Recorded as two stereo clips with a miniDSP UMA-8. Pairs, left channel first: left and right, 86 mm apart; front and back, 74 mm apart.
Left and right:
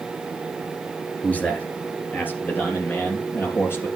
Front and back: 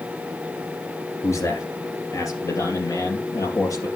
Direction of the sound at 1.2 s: 20° left.